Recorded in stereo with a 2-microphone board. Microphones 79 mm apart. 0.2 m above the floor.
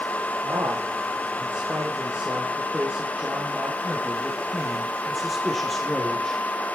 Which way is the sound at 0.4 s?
40° right (ahead or behind).